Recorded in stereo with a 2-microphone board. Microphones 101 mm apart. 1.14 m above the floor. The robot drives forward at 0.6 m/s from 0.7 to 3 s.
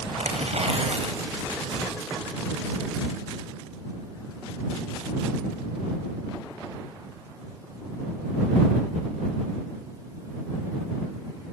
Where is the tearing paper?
85° right, 5.5 m; by 1.6 s 80° right, 5.5 m.